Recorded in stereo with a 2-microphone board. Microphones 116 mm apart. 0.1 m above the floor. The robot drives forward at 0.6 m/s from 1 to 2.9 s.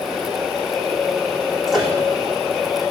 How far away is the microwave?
About 4 m.